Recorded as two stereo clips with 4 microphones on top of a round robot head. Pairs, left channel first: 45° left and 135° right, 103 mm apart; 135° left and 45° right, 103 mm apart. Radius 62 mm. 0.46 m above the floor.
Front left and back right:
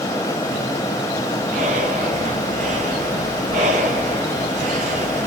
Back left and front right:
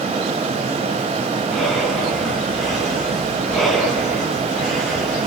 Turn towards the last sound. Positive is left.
turn(degrees=-135)